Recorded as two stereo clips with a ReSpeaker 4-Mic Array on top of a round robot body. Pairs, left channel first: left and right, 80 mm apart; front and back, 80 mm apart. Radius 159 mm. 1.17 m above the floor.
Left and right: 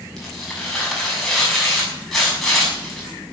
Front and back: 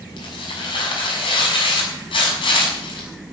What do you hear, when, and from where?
0.2 s tearing paper: 5° left, 6.5 m